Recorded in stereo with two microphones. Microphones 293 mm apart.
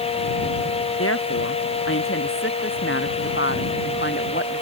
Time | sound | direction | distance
1.0 | a woman speaking | 50° left (ahead or behind) | ?